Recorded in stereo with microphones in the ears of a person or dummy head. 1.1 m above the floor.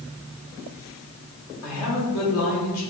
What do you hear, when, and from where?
1.6 s a woman speaking: 75° left (ahead or behind), 1.7 m